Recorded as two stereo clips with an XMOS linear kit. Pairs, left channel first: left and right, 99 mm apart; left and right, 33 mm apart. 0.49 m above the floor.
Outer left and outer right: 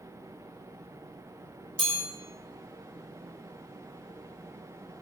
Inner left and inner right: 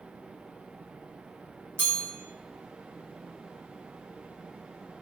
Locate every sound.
1.8 s a chime: 70° right (ahead or behind), 1.3 m